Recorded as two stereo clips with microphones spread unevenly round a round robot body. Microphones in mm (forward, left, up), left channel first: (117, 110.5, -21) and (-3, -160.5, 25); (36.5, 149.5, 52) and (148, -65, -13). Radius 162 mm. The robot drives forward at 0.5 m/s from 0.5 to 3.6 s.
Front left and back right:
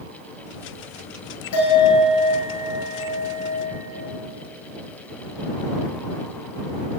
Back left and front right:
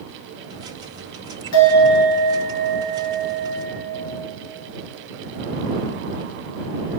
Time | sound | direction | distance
1.5 | a bell | 110° left | 1.7 m